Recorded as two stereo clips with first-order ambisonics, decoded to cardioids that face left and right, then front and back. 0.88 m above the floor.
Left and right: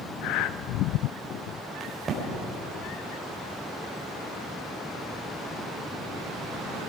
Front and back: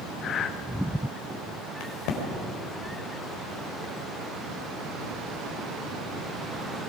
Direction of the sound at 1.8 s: 25° right.